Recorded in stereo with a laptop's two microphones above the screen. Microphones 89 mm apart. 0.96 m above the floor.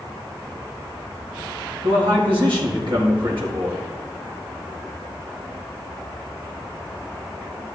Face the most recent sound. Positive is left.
turn(degrees=-70)  # may be behind; listen again after turning